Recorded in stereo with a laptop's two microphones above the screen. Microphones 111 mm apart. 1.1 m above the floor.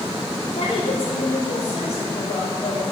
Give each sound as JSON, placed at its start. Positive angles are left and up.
{"t": 0.5, "sound": "a woman speaking", "side_deg": 65, "distance_m": 3.0}